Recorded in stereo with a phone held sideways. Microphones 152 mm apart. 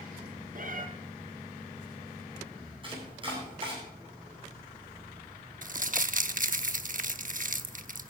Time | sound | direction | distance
0.6 | a cat meowing | 60° right (ahead or behind) | 2.5 m
2.8 | chopping | 35° right (ahead or behind) | 9.5 m
5.6 | crumpling | 55° right (ahead or behind) | 0.9 m